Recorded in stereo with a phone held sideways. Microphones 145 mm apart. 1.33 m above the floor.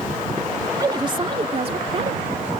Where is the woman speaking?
25° right (ahead or behind); by 2.5 s 50° right (ahead or behind).